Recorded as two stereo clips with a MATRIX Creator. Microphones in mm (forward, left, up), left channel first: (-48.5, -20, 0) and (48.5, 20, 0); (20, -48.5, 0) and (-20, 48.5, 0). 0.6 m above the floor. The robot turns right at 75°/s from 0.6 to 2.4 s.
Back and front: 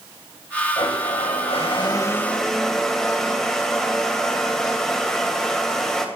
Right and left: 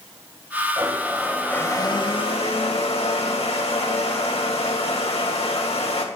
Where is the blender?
165° left, 2.5 m; by 6.0 s 75° right, 2.5 m.